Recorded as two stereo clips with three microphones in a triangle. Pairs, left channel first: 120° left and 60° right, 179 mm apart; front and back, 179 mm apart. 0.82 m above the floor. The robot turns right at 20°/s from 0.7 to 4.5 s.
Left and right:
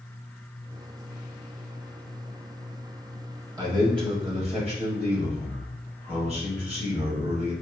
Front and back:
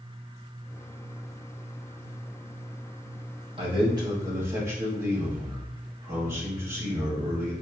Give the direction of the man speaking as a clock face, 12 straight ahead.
4 o'clock.